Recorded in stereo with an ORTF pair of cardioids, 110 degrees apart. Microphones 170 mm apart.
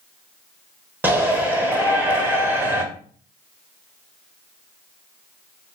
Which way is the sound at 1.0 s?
10° right.